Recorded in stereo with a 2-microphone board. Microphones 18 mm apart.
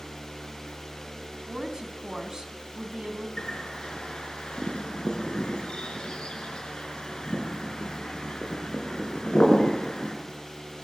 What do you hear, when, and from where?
1.5 s a woman speaking: 40° right (ahead or behind), 3.5 m
3.4 s a bird: 60° left (ahead or behind), 5 m